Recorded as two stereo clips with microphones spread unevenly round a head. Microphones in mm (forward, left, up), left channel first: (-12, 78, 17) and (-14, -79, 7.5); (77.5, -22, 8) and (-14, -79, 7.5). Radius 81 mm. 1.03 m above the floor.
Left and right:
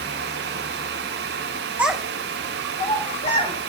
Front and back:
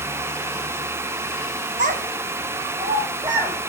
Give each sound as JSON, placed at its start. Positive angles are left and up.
{"t": 1.8, "sound": "a child speaking", "azimuth_deg": -170, "distance_m": 0.7}